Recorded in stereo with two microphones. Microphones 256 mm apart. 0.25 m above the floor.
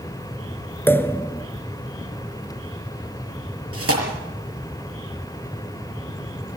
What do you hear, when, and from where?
0.9 s a pop: 10° left (ahead or behind), 1.0 m
3.7 s tearing paper: 60° right (ahead or behind), 6.5 m